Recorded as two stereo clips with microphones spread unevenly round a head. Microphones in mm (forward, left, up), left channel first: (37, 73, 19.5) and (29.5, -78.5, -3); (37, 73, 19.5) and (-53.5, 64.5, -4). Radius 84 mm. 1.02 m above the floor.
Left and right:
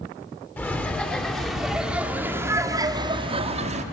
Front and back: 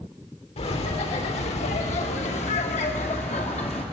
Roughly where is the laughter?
Ahead.